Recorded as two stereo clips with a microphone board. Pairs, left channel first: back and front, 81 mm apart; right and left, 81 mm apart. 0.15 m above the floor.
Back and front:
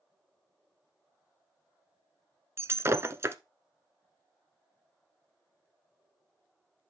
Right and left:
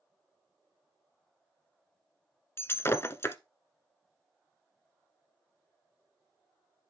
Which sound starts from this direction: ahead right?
Breaking glass, at 2.6 s.